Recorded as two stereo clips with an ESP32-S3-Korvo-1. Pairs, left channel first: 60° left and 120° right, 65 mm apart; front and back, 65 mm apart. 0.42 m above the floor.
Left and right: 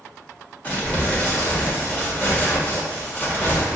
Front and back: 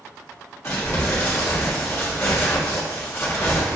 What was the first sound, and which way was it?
Crumpling, 5° left.